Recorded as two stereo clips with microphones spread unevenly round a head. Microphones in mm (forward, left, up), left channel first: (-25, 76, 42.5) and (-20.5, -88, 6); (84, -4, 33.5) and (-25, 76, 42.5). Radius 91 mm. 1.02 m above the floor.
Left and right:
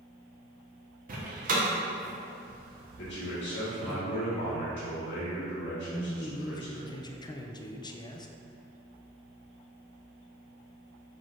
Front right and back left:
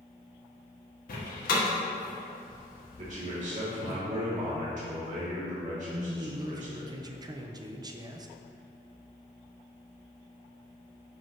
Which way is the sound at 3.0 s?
110° left.